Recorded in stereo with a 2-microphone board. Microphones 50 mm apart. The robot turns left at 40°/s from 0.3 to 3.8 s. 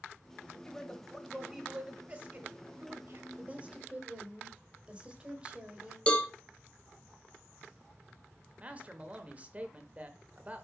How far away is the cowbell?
About 0.9 m.